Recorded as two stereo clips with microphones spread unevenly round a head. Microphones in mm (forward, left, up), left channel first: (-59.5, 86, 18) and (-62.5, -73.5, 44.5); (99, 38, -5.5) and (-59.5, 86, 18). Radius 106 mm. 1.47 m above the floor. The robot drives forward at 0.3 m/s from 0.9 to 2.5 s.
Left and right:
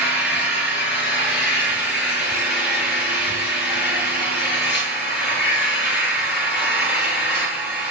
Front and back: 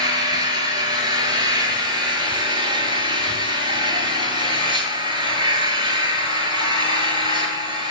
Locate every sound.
0.0 s an engine running: 100° left, 8.5 m; by 7.9 s 105° left, 8.5 m